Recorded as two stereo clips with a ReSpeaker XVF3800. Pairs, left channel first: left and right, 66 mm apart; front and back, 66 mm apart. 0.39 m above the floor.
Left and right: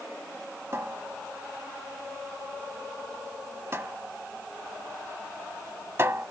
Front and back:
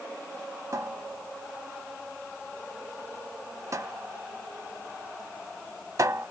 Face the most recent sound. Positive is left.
turn(degrees=-140)